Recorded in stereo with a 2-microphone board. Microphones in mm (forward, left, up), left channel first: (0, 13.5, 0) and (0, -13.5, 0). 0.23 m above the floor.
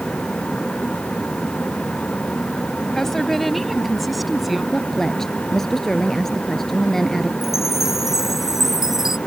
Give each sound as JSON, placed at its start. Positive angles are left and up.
{"t": 3.0, "sound": "a woman speaking", "side_deg": 15}
{"t": 4.7, "sound": "a woman speaking", "side_deg": 15}
{"t": 7.4, "sound": "a chime", "side_deg": -10}